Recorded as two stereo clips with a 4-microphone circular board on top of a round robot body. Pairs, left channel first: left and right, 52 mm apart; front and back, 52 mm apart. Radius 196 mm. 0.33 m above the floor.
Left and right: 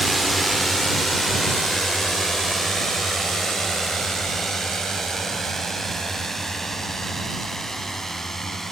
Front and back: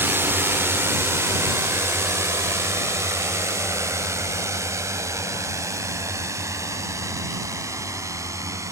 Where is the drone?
Straight behind; by 8.7 s 175° left.